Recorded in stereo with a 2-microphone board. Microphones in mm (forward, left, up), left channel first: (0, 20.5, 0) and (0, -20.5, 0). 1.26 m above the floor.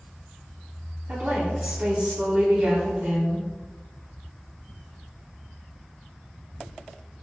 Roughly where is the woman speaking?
Right.